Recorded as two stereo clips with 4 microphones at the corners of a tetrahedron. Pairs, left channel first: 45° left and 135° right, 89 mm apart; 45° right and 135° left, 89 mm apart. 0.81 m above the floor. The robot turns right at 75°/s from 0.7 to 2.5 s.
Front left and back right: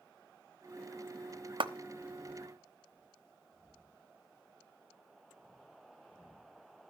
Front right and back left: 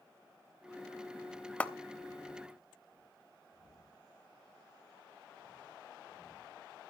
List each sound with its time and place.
1.6 s a clap: 120° right, 0.9 m; by 1.7 s 110° right, 0.9 m